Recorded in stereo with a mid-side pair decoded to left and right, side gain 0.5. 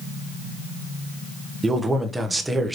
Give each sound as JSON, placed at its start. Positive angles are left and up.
{"t": 1.6, "sound": "a man speaking", "azimuth_deg": -15, "distance_m": 0.9}